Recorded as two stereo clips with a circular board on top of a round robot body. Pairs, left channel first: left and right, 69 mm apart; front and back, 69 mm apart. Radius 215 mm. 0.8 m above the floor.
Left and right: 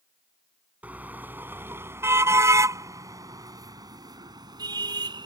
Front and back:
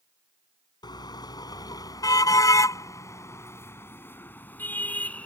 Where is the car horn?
20° right; by 5.3 s 75° right.